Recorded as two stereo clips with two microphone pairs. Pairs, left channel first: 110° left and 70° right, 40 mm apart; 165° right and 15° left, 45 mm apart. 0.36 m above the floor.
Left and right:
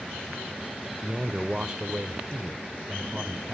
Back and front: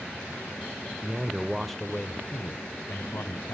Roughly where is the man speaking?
Ahead.